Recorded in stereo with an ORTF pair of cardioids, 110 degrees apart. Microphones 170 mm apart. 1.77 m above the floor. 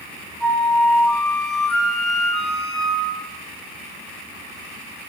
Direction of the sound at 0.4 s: 5° left.